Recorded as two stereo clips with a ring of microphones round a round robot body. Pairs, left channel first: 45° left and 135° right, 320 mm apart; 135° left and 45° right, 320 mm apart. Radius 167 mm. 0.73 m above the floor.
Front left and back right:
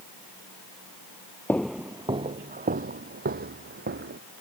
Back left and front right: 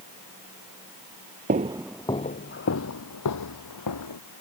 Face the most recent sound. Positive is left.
turn(degrees=165)